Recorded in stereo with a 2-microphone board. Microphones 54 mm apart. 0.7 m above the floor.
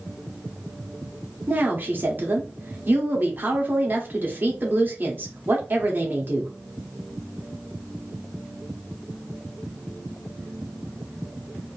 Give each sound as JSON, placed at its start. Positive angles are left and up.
{"t": 1.5, "sound": "a woman speaking", "side_deg": -40, "distance_m": 1.4}